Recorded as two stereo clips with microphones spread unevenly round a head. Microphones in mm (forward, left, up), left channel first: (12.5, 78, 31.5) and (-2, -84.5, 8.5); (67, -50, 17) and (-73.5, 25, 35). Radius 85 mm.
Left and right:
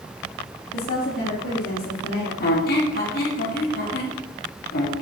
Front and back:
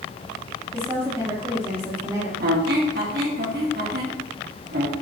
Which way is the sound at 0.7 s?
75° left.